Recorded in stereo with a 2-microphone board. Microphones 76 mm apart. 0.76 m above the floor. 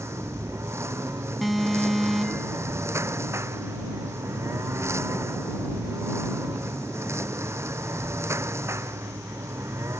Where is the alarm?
Centre (ahead or behind).